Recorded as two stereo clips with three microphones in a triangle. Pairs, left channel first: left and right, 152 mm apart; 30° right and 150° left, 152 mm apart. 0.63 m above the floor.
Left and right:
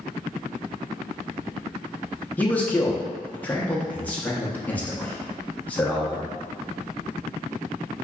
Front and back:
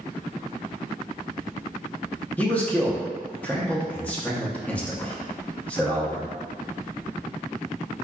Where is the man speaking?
30° left, 0.6 m.